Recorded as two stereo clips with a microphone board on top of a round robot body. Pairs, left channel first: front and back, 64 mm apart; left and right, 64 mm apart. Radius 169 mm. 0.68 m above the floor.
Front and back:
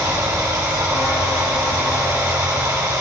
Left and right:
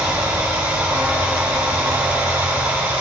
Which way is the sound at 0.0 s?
160° right.